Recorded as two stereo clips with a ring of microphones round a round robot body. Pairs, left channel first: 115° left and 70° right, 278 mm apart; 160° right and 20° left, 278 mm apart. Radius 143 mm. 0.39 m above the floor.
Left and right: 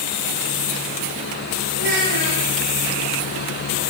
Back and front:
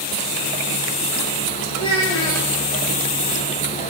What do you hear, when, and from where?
1.8 s a child speaking: 85° right, 8 m